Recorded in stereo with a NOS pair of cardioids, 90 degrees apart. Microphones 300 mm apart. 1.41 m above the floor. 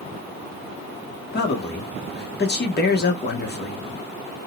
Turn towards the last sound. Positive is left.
turn(degrees=35)